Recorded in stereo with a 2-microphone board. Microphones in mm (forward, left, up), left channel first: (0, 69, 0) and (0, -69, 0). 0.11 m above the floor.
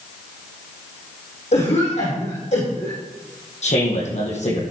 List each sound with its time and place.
1.5 s a cough: 55° left (ahead or behind), 5 m
3.6 s a man speaking: 55° left (ahead or behind), 4.5 m